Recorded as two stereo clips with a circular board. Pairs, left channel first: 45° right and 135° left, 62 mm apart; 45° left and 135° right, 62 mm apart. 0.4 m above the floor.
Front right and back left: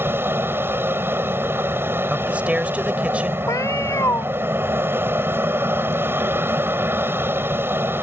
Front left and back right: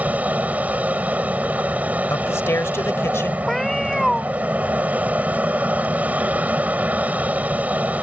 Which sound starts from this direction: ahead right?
A cat meowing, at 3.5 s.